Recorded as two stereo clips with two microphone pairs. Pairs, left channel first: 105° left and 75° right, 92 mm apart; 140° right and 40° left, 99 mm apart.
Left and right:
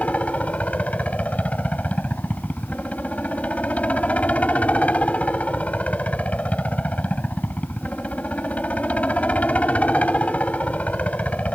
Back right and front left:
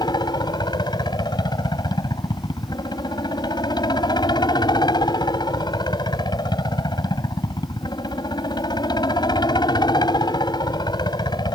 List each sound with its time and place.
0.0 s a helicopter: straight behind